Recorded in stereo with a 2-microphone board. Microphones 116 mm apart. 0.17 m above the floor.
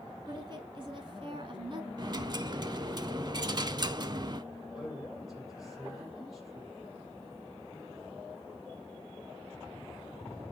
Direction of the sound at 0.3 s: 40° right (ahead or behind).